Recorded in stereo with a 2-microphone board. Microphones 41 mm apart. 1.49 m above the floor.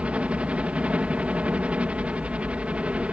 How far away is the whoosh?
I don't hear a whoosh.